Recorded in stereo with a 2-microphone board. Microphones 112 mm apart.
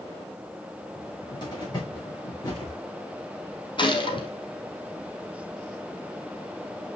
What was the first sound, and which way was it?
A cupboard door, 40° left (ahead or behind).